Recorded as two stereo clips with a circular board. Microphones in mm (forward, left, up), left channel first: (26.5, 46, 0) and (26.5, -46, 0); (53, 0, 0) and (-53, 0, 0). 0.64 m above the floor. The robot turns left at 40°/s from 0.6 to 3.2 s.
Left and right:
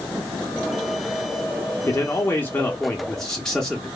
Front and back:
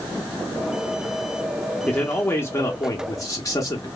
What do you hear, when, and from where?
1.9 s a man speaking: 65° left, 0.7 m; by 3.9 s 10° left, 0.7 m